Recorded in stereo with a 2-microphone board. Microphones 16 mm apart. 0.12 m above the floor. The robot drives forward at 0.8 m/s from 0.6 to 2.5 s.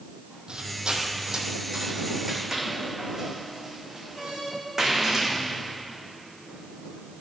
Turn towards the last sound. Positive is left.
turn(degrees=-35)  # may be behind; listen again after turning